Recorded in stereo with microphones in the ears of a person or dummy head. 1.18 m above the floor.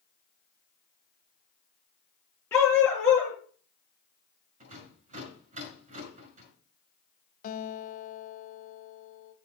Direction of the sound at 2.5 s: 15° left (ahead or behind).